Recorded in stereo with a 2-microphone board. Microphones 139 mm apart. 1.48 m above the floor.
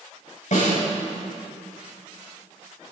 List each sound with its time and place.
0.5 s a snare drum: 65° left (ahead or behind), 6 m